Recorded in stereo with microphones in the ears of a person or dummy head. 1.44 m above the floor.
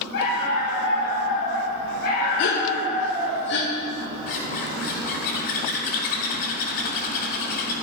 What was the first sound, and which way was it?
A dog barking, 60° left (ahead or behind).